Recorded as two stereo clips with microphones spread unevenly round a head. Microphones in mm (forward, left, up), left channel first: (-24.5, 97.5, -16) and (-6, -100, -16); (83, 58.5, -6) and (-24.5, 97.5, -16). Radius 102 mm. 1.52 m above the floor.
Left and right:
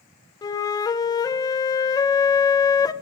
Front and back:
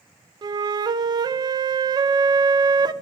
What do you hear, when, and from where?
0.4 s a flute: 150° left, 0.7 m